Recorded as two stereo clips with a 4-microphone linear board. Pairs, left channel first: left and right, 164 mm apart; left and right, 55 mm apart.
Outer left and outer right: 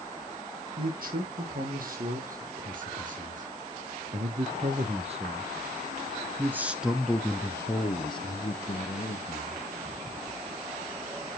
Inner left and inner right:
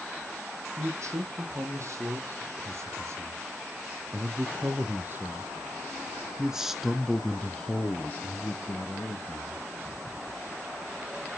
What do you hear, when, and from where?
0.8 s a man speaking: 60° right (ahead or behind), 3.5 m; by 9.7 s 50° left (ahead or behind), 1.7 m